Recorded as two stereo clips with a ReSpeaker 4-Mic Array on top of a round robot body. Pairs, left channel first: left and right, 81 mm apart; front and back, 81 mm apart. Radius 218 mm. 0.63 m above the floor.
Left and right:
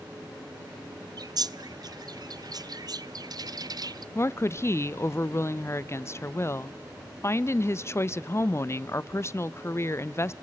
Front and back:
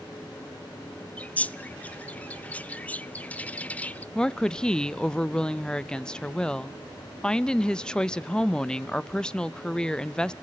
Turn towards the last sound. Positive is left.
turn(degrees=75)